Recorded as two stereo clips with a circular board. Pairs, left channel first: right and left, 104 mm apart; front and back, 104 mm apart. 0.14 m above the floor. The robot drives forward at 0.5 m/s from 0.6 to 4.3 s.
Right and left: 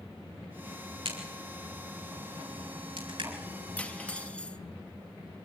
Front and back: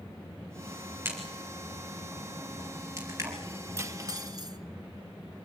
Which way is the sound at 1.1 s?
115° left.